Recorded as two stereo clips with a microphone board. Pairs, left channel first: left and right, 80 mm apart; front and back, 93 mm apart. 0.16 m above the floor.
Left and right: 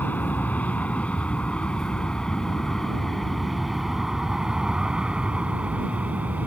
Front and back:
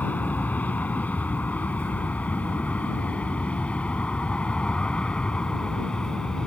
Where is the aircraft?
50° left; by 6.5 s 65° right.